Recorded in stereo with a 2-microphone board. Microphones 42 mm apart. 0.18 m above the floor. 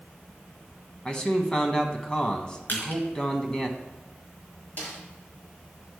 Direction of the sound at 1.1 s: 20° left (ahead or behind).